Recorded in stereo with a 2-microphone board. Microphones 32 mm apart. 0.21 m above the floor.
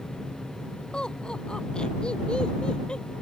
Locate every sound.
0.9 s laughter: 30° left (ahead or behind)